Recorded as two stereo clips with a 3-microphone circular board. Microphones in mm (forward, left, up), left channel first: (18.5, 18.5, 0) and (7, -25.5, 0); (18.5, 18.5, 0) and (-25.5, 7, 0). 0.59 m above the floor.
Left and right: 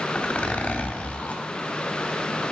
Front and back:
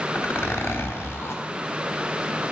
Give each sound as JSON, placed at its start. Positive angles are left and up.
{"t": 0.1, "sound": "a zipper", "azimuth_deg": 20, "distance_m": 0.7}